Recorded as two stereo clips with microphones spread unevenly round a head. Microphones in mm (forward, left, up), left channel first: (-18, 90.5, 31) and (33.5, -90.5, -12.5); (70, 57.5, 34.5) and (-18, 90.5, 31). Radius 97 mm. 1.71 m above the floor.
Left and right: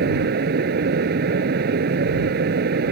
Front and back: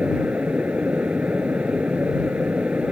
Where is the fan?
115° right.